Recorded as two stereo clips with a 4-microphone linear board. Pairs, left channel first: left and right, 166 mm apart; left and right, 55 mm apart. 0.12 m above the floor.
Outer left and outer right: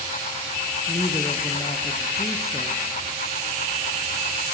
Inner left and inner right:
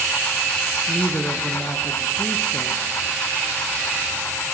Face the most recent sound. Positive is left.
turn(degrees=20)  # may be behind; listen again after turning